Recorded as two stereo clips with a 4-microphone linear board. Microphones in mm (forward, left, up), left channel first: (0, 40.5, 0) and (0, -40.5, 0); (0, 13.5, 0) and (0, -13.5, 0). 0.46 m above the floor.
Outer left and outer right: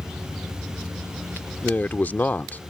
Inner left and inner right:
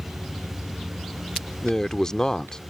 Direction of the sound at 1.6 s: 20° left (ahead or behind).